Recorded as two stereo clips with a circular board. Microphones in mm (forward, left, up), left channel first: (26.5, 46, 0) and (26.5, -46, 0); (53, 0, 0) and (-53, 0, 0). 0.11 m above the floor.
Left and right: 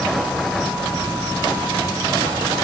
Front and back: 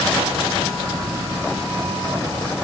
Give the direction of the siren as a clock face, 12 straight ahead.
No siren in this recording.